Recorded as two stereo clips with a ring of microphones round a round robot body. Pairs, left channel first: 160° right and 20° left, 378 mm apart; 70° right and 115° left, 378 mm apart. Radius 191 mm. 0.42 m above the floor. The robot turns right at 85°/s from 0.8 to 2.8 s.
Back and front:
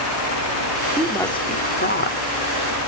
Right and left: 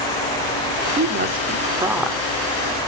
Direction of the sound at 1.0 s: 110° left.